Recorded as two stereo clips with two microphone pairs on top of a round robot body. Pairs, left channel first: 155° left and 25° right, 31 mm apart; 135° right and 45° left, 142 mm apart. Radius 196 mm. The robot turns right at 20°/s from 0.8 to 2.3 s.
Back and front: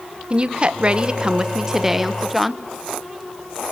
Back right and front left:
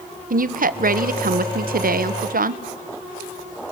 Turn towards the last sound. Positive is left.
turn(degrees=60)